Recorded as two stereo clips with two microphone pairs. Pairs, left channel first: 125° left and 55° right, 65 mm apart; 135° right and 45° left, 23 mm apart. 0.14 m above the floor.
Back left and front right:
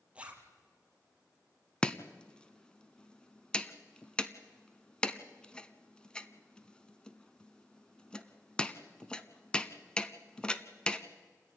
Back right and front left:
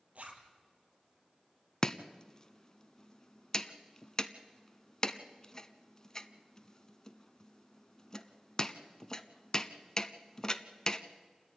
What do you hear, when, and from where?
0.1 s a zipper: 15° left, 2.5 m
1.8 s chopping: 175° right, 0.7 m